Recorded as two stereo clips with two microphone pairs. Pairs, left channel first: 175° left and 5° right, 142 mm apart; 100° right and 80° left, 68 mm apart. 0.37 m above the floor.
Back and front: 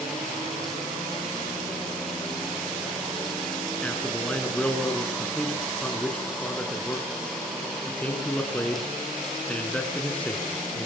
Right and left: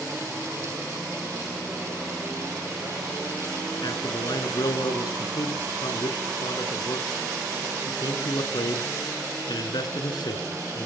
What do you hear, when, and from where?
3.8 s a man speaking: 100° right, 3.5 m